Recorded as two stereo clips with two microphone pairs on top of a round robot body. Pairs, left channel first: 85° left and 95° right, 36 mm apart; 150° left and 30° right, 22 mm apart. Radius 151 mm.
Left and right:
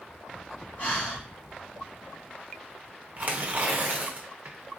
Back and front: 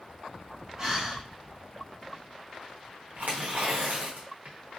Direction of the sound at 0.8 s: 35° left.